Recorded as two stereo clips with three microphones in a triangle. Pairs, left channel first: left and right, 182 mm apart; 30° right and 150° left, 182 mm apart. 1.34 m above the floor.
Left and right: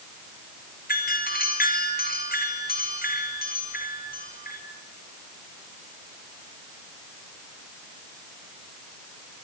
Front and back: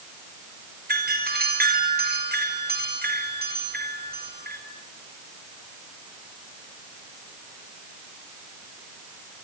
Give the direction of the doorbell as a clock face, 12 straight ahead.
8 o'clock.